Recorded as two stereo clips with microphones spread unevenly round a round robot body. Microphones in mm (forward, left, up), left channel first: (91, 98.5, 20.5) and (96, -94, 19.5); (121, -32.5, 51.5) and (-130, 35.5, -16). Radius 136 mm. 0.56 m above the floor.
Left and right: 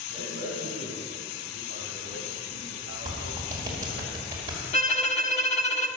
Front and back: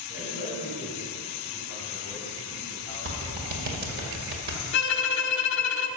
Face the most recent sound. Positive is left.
turn(degrees=35)